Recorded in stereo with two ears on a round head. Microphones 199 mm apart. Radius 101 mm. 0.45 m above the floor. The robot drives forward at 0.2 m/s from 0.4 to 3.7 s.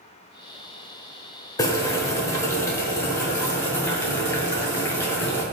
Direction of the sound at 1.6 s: 15° left (ahead or behind).